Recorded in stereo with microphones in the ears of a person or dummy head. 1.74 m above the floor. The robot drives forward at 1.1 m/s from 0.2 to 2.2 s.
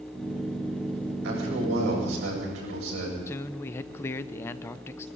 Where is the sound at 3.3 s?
10° left (ahead or behind), 0.7 m.